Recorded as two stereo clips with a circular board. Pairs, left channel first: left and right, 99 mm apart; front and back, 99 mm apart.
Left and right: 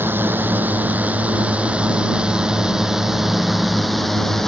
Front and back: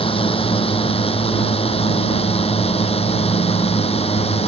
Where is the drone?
20° right; by 4.5 s 5° left.